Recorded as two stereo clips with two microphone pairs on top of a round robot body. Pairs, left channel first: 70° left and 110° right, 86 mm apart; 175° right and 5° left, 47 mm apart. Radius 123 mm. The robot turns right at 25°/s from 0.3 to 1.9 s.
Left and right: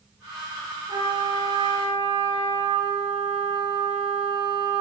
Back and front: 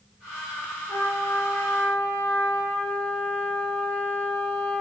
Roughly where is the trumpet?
Behind right.